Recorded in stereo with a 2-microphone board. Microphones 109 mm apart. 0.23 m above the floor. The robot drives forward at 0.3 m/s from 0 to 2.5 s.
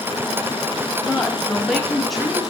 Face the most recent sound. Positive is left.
turn(degrees=0)  # may be behind; listen again after turning